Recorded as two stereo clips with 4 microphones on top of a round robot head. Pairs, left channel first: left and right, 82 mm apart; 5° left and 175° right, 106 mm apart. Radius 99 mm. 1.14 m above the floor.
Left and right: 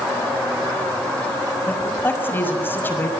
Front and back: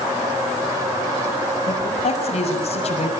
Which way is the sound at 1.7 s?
25° left.